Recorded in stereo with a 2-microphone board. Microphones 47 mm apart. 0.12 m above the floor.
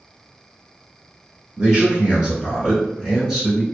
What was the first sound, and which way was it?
A man speaking, 25° right (ahead or behind).